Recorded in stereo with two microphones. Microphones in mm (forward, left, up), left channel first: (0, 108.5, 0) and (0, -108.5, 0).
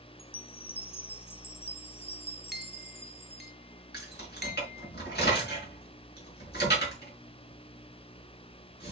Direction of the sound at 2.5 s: 50° right (ahead or behind).